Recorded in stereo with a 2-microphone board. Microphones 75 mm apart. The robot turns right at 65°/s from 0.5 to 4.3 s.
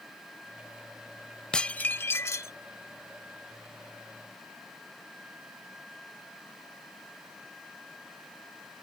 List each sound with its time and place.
1.5 s dishes clattering: 15° left; by 2.5 s 80° left